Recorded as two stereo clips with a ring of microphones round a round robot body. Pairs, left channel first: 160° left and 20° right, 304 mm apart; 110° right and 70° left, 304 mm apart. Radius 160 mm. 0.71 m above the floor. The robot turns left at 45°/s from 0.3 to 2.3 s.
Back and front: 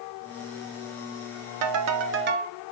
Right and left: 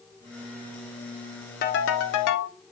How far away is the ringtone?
About 0.8 m.